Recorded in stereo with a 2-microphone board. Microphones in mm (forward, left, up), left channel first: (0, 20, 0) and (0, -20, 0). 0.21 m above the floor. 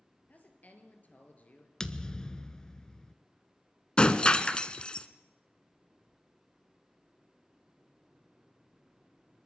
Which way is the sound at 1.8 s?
20° left (ahead or behind).